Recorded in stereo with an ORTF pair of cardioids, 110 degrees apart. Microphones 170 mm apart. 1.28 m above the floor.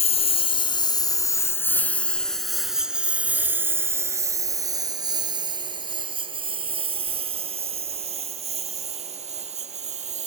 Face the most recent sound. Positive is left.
turn(degrees=-40)